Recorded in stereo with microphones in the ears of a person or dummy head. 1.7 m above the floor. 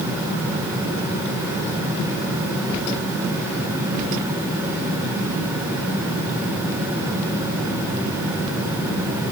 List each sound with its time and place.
Only background noise.